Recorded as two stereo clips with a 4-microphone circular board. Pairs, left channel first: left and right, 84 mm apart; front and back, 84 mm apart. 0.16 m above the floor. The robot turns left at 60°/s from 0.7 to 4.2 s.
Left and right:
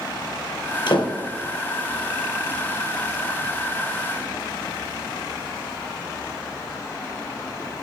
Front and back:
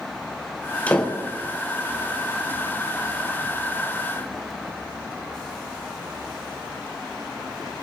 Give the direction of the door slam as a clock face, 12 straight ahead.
10 o'clock.